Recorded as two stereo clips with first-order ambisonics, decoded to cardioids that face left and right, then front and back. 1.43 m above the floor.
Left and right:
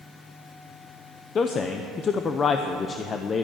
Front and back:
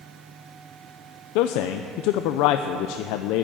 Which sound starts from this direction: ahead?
A man speaking, at 1.4 s.